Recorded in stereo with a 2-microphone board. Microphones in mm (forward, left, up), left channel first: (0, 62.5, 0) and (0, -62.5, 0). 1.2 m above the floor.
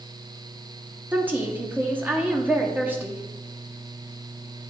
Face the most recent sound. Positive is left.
turn(degrees=-15)  # may be behind; listen again after turning